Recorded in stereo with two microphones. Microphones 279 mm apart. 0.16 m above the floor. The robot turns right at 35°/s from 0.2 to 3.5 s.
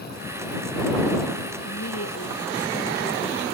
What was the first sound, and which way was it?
A woman speaking, 105° left.